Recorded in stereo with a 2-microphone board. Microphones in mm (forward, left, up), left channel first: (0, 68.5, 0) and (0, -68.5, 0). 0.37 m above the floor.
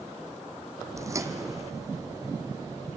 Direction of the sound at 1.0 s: 25° right (ahead or behind).